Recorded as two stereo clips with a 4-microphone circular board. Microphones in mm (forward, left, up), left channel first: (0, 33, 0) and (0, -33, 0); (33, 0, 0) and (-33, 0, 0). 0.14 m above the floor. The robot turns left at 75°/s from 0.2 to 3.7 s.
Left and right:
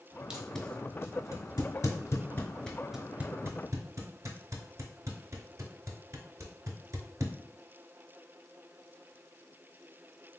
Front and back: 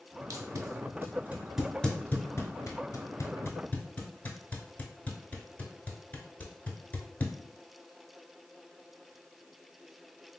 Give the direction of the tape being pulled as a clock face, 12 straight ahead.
6 o'clock.